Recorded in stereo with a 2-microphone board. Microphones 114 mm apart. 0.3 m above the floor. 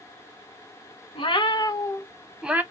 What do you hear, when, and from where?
1.1 s a cat meowing: 50° left (ahead or behind), 0.8 m; by 2.6 s 15° right (ahead or behind), 0.6 m